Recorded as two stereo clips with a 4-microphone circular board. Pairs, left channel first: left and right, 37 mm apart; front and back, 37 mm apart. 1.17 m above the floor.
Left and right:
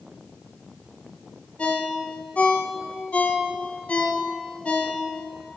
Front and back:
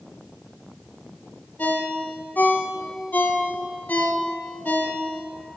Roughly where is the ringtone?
Ahead left.